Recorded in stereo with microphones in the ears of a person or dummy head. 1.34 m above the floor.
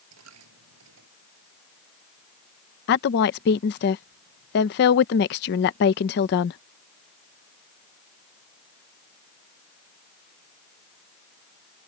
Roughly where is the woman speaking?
Left.